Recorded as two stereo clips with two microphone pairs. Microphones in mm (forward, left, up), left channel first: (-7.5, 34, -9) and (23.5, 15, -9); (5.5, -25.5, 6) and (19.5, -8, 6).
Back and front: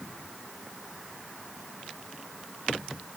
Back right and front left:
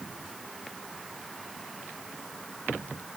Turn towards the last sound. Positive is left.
No sound to turn to.